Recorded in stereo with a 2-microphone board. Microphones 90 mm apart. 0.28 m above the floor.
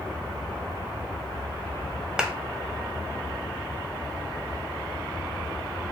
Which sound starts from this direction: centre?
A clap, at 2.2 s.